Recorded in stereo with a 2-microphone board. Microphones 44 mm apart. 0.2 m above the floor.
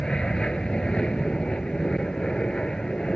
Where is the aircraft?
20° left (ahead or behind).